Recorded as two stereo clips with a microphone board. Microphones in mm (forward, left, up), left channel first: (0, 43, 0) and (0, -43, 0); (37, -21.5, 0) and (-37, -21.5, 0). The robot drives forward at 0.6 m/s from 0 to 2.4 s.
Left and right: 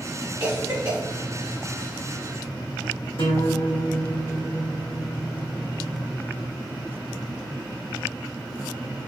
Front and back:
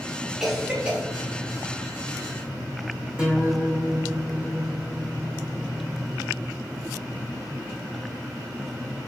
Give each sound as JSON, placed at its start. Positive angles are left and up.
{"t": 0.4, "sound": "a cough", "azimuth_deg": -100, "distance_m": 1.1}
{"t": 3.2, "sound": "a guitar", "azimuth_deg": 105, "distance_m": 1.7}